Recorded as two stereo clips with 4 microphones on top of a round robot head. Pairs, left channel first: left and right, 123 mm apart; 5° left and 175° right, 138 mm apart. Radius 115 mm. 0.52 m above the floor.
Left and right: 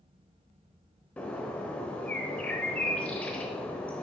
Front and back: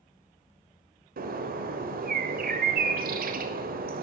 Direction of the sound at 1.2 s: 170° left.